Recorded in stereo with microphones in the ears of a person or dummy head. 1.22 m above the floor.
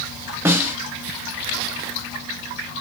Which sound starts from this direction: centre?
A snare drum, at 0.5 s.